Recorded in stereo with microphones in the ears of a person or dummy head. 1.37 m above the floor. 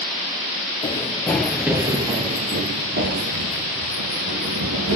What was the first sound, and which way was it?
Running footsteps, 20° left (ahead or behind).